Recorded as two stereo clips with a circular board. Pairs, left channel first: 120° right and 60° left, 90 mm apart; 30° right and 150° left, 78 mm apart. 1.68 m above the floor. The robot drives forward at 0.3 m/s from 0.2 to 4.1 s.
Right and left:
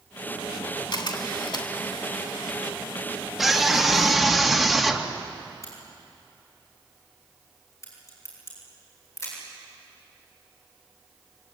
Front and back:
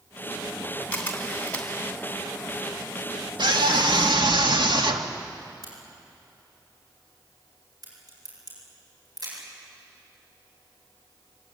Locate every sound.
0.9 s a camera shutter: 95° right, 3 m; by 1.7 s 100° right, 3.5 m
3.4 s a scream: 150° left, 2.5 m
5.6 s a crack: 175° right, 8.5 m